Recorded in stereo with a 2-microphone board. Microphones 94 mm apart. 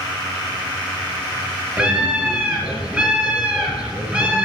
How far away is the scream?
About 3 m.